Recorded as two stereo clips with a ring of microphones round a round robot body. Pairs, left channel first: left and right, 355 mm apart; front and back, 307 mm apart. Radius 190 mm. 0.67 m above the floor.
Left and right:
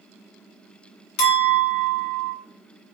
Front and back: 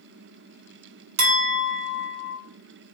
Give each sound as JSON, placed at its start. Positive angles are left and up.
{"t": 1.2, "sound": "a clink", "azimuth_deg": 130, "distance_m": 1.2}